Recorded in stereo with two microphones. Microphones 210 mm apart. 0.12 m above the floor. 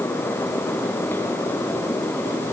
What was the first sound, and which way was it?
Only background noise.